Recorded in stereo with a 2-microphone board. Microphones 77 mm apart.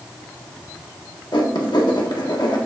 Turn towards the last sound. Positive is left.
turn(degrees=75)  # may be behind; listen again after turning